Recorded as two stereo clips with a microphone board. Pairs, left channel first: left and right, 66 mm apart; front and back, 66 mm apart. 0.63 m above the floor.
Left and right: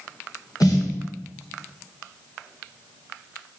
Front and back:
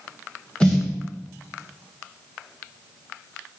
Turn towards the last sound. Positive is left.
turn(degrees=75)